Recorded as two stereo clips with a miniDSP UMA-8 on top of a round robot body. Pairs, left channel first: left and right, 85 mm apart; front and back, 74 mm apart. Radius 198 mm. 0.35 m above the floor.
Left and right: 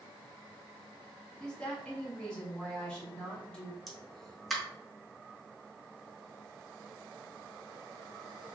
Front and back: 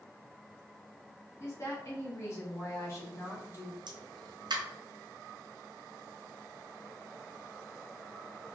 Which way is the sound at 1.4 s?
15° left.